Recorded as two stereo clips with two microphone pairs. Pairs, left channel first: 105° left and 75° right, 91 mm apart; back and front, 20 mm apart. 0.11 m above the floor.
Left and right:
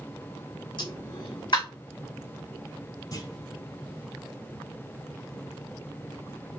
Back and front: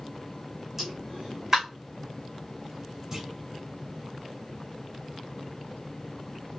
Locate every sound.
0.8 s a pop: 75° left, 2.5 m
3.1 s a clunk: 70° left, 3 m